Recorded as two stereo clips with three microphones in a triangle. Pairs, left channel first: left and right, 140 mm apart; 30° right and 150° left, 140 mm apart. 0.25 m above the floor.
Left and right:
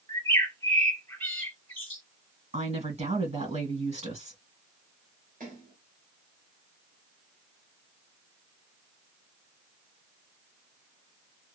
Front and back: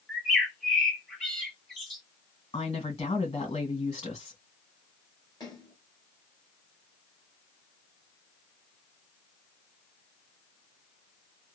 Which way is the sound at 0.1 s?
45° left.